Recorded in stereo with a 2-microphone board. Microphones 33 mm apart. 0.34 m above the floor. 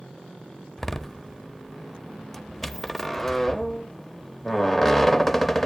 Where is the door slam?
10° left (ahead or behind), 0.7 m.